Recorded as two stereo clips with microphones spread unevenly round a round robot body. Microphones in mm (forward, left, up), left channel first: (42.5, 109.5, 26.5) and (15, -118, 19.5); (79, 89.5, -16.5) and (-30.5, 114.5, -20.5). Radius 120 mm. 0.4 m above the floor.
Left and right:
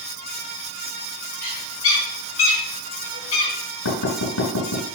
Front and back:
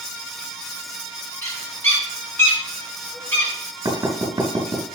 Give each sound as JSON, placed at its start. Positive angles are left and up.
{"t": 1.4, "sound": "a bird", "azimuth_deg": 60, "distance_m": 4.5}
{"t": 3.9, "sound": "knocking", "azimuth_deg": 110, "distance_m": 2.5}